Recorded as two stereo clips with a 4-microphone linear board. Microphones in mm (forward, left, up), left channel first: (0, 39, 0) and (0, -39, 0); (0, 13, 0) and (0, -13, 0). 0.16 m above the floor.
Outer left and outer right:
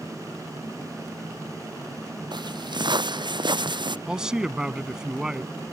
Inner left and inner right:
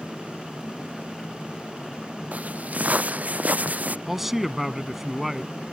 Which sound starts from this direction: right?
Footsteps, at 2.3 s.